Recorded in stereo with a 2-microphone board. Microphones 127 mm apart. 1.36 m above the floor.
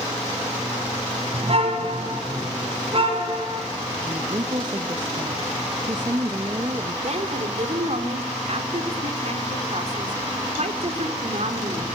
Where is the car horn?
50° right (ahead or behind), 5 m; by 3.7 s 45° right (ahead or behind), 7.5 m.